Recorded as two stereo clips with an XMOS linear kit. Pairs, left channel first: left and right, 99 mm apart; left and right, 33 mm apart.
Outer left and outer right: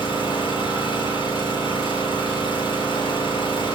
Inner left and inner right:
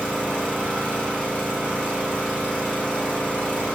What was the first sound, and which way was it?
An engine running, 55° left (ahead or behind).